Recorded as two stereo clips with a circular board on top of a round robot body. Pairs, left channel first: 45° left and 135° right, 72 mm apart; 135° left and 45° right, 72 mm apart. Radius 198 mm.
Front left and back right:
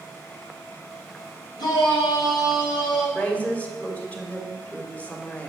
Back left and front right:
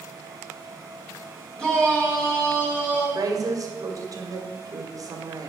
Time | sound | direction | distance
1.6 | a shout | 55° left | 3.5 m
3.1 | a woman speaking | 20° right | 1.9 m